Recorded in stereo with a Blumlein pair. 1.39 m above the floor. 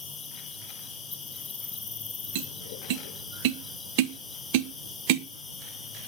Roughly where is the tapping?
Ahead right.